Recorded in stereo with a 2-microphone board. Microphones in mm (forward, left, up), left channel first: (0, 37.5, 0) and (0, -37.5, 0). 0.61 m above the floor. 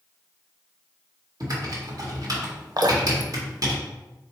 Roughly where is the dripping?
Right.